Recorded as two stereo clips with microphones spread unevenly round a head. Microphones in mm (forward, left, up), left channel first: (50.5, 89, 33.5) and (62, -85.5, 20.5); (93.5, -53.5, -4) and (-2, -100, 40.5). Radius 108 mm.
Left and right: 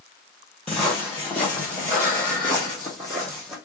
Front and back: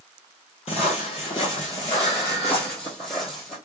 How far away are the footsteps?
About 1.6 m.